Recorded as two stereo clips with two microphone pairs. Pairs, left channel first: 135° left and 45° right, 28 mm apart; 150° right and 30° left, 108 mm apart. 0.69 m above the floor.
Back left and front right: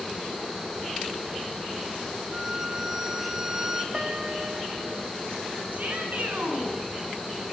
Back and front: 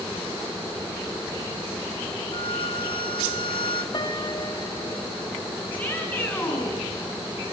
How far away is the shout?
About 8.5 m.